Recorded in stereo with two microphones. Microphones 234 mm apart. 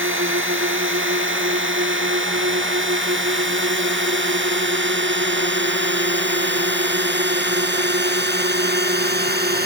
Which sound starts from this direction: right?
A drone, at 0.0 s.